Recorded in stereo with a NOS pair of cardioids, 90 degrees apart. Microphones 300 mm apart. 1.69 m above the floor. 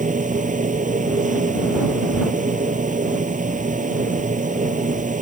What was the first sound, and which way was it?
A machine running, 25° right.